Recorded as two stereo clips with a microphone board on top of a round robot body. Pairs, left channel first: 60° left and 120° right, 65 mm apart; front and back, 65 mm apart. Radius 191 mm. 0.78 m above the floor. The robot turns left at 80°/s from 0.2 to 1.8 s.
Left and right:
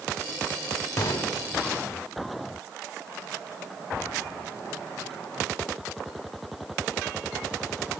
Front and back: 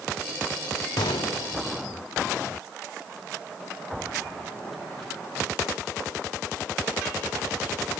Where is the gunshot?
30° left, 0.6 m; by 1.9 s 40° right, 0.6 m.